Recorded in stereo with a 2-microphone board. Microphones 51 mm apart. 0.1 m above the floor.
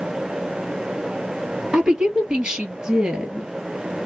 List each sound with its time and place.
1.7 s a woman speaking: 15° right (ahead or behind), 1.6 m